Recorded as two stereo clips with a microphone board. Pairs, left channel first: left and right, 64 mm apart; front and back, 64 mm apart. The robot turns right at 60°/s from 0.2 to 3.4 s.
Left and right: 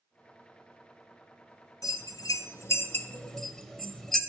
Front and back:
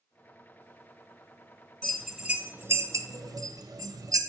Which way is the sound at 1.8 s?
80° left.